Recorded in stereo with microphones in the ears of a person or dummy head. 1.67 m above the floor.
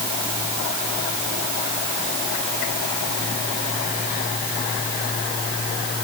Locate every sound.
Only background noise.